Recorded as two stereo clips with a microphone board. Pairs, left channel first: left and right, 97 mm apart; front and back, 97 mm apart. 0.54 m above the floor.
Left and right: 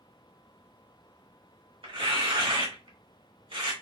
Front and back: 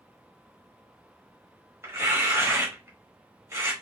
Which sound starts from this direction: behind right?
Tearing paper, at 1.8 s.